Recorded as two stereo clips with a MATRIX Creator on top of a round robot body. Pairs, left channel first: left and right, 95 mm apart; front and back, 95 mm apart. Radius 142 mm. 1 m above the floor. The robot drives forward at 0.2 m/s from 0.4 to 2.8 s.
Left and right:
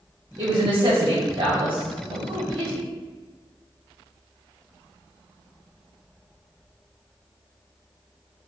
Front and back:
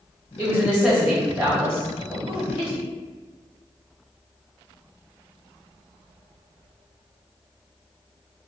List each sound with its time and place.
0.4 s a woman speaking: 100° right, 1.1 m; by 2.9 s 125° right, 1.2 m